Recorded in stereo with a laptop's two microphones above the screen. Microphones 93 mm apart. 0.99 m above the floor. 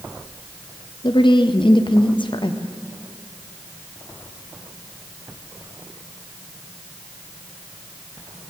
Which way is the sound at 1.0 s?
70° left (ahead or behind).